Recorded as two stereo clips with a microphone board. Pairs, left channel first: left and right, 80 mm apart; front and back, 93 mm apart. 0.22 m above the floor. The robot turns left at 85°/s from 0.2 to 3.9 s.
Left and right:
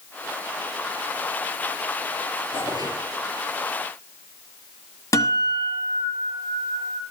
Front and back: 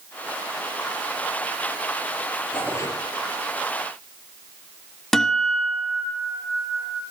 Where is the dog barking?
I don't hear a dog barking.